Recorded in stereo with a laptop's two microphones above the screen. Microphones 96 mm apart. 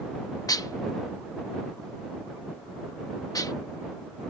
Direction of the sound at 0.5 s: 40° left (ahead or behind).